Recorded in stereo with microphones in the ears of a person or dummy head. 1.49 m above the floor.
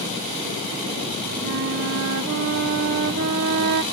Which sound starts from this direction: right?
A flute, at 1.4 s.